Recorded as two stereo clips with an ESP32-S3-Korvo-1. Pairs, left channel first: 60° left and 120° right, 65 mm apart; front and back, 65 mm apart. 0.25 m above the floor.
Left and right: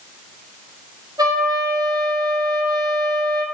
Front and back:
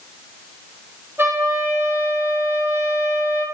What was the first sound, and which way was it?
A trumpet, 125° right.